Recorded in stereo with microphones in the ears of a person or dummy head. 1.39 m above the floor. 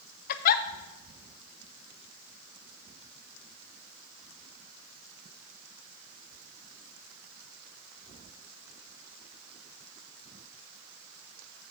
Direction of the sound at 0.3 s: 50° left (ahead or behind).